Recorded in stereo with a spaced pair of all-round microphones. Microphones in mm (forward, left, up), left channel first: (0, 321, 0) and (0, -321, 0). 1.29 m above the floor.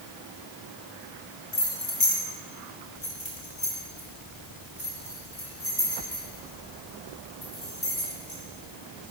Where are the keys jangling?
45° left (ahead or behind), 1.3 m; by 8.4 s 40° left (ahead or behind), 5 m.